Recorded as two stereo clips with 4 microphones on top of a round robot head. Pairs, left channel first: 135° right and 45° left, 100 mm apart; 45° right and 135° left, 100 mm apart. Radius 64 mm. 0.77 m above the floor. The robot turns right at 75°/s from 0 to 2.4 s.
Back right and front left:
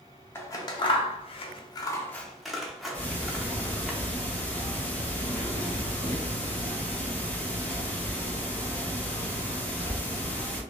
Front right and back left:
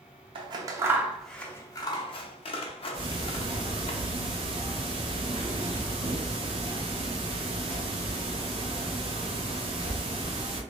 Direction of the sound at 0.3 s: 160° left.